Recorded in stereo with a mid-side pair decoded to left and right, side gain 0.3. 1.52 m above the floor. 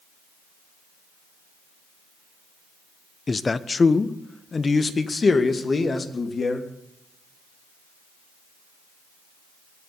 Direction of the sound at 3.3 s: 40° left.